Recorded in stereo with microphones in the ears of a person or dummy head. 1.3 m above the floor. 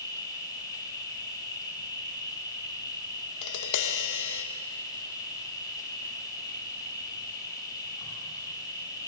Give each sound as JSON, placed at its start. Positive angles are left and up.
{"t": 0.0, "sound": "an insect", "side_deg": 25, "distance_m": 4.5}
{"t": 3.4, "sound": "tapping", "side_deg": 65, "distance_m": 1.3}